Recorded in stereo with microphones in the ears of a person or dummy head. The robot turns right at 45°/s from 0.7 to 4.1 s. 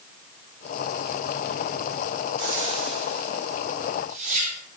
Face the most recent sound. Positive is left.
turn(degrees=-40)  # may be behind; listen again after turning